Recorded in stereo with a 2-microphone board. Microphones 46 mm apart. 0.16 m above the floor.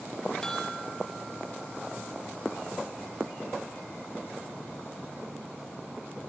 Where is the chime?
10° left (ahead or behind), 2.5 m.